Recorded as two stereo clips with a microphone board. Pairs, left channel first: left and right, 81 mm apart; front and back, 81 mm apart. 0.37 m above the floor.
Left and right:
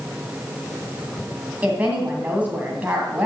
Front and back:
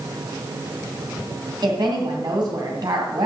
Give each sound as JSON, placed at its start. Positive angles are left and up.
{"t": 1.6, "sound": "a woman speaking", "azimuth_deg": -160, "distance_m": 2.0}